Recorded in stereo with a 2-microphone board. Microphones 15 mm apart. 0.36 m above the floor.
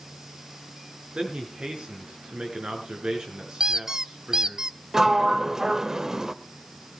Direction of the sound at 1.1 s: 60° right (ahead or behind).